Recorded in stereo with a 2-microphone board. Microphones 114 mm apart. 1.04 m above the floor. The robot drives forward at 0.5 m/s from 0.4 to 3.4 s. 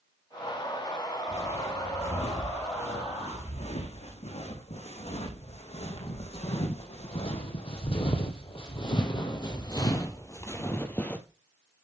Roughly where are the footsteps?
Left.